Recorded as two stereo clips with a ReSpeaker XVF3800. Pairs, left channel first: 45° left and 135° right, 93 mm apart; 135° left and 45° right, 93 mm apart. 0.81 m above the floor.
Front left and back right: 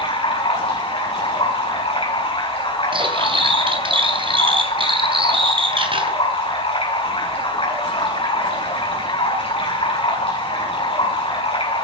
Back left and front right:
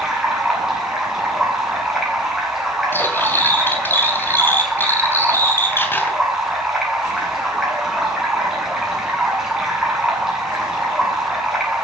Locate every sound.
0.0 s running water: 40° left, 8.5 m
2.9 s cutlery clinking: 160° right, 3 m